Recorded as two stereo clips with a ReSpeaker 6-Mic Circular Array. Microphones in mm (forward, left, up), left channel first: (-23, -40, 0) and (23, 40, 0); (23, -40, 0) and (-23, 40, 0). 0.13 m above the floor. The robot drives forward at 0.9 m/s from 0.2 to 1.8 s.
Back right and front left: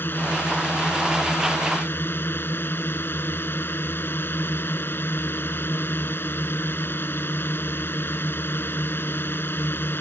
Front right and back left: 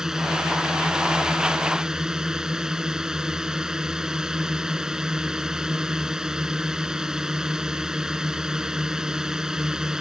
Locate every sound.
0.0 s a drone: 160° right; by 10.0 s 165° right